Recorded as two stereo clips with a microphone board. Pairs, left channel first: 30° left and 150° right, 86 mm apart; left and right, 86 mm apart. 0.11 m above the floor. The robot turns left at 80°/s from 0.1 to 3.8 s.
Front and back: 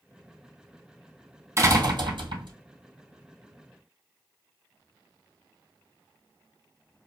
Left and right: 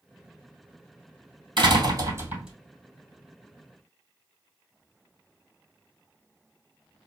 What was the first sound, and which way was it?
A door slam, 100° right.